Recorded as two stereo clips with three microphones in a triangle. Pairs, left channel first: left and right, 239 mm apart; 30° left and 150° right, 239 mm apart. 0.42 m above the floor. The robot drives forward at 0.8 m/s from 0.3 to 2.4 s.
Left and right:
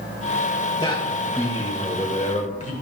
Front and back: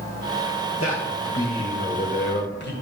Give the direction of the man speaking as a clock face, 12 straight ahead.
11 o'clock.